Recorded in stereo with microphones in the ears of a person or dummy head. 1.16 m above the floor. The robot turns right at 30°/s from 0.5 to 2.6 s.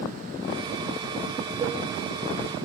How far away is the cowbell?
About 3 m.